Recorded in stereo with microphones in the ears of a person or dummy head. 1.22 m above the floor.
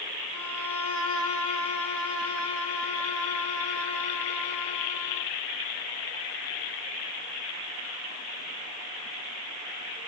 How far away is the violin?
About 4 m.